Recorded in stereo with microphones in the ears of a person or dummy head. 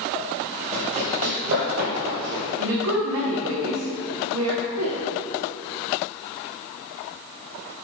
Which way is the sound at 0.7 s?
35° right (ahead or behind).